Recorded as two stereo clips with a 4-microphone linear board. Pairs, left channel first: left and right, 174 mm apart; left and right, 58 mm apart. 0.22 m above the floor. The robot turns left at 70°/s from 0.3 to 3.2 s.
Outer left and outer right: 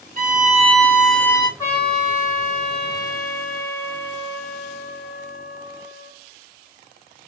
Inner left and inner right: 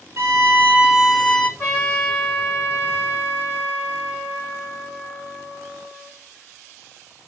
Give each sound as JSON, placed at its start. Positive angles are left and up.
{"t": 0.2, "sound": "a violin", "azimuth_deg": -125, "distance_m": 0.5}
{"t": 1.6, "sound": "a trumpet", "azimuth_deg": 25, "distance_m": 2.0}